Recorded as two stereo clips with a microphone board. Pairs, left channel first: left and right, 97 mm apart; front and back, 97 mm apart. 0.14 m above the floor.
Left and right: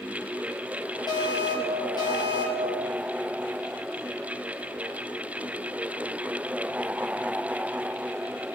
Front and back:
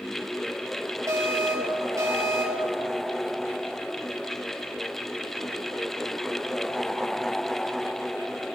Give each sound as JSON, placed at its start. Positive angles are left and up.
{"t": 1.1, "sound": "an alarm", "azimuth_deg": 130, "distance_m": 4.0}